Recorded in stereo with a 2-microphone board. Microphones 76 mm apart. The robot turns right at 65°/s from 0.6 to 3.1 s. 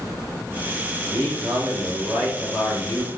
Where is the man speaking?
95° right, 2.5 m; by 3.1 s 40° left, 2.5 m.